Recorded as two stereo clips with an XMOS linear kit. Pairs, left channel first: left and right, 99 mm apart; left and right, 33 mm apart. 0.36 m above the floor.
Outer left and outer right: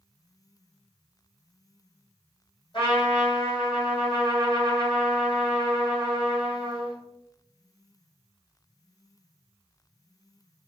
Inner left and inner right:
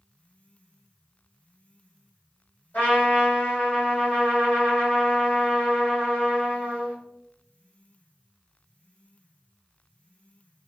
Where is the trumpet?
55° left (ahead or behind), 1.9 m.